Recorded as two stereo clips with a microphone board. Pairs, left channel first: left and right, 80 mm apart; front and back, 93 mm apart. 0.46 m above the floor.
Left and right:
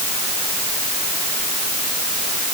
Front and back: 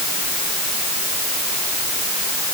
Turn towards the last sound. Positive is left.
No sound to turn to.